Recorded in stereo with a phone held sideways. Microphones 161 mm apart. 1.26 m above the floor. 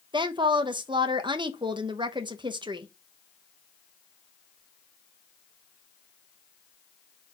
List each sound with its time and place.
0.1 s a woman speaking: 30° right (ahead or behind), 0.9 m